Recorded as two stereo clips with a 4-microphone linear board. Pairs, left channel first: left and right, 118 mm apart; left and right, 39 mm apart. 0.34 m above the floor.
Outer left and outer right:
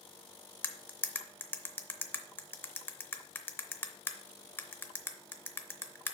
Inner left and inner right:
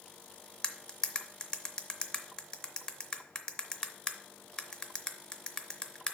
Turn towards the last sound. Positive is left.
turn(degrees=20)  # may be behind; listen again after turning